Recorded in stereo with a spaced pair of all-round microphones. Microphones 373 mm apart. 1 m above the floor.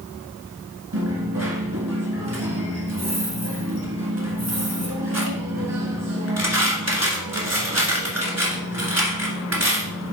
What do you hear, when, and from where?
0.9 s a dropped coin: 45° right (ahead or behind), 1.6 m